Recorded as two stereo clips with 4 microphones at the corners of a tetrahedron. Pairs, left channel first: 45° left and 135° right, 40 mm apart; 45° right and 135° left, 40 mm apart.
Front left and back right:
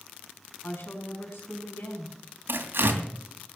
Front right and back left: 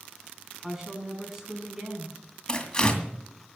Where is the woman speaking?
55° left, 5.5 m.